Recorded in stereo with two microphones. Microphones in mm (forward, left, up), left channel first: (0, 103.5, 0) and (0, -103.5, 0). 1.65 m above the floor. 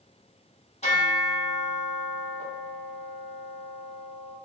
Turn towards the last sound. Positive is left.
turn(degrees=35)  # may be behind; listen again after turning